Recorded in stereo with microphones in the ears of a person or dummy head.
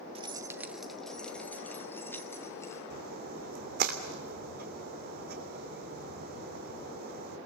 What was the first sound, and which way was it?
Keys jangling, 25° right (ahead or behind).